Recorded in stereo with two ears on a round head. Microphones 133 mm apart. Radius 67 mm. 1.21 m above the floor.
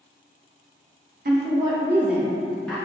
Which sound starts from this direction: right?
A woman speaking, at 1.2 s.